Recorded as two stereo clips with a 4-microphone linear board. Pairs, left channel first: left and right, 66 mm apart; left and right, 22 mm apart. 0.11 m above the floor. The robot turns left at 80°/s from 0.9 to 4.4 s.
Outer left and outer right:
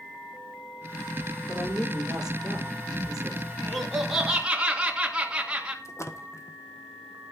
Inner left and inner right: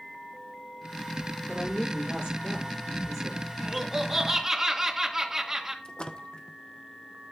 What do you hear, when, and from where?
1.5 s a woman speaking: 40° right, 4.5 m; by 3.5 s 160° left, 4.5 m
3.6 s laughter: 10° left (ahead or behind), 1.8 m; by 5.8 s 15° right (ahead or behind), 1.8 m
5.8 s a splash: 50° left (ahead or behind), 1.2 m